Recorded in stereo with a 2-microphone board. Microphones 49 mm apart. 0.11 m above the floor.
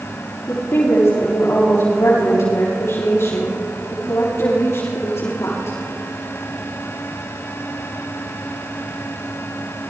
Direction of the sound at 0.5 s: 80° left.